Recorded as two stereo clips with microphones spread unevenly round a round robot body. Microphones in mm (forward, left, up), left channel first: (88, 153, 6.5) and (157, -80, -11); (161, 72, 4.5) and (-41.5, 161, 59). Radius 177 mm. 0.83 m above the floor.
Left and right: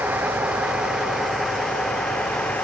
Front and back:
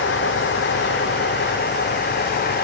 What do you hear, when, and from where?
0.0 s a vehicle: 10° left; by 2.6 s 20° left